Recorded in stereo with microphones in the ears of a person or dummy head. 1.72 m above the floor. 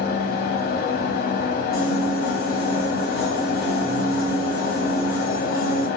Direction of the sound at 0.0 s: 60° left (ahead or behind).